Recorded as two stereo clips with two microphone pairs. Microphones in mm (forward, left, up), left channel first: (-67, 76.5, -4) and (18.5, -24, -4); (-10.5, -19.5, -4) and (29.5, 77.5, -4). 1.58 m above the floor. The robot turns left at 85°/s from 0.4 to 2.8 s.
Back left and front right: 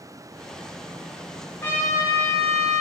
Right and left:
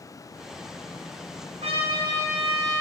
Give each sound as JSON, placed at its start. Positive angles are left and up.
{"t": 1.6, "sound": "a trumpet", "azimuth_deg": 65, "distance_m": 0.9}